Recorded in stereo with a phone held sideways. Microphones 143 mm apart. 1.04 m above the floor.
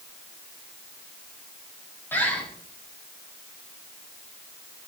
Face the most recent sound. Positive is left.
turn(degrees=15)  # may be behind; listen again after turning